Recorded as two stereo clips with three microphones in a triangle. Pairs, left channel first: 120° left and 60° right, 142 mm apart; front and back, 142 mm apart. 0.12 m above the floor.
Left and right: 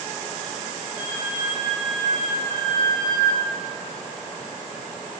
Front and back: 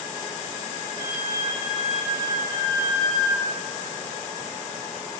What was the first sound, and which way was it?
A flute, 145° right.